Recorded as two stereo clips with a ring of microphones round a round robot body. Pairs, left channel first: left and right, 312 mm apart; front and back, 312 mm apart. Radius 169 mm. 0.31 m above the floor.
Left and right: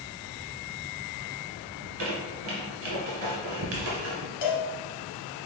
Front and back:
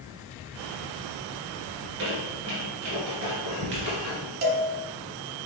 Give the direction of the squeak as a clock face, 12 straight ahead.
4 o'clock.